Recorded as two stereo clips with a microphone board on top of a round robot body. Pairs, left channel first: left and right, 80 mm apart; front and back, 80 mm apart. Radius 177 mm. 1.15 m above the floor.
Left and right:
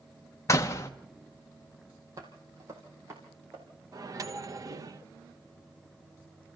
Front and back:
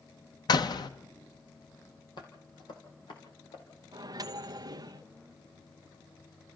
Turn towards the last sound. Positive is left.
turn(degrees=-140)